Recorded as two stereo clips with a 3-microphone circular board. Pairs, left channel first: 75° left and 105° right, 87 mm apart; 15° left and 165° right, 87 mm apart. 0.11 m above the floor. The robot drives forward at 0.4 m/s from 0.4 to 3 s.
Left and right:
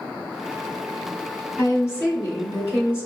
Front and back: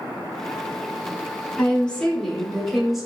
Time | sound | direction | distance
1.6 | a woman speaking | 70° left | 1.5 m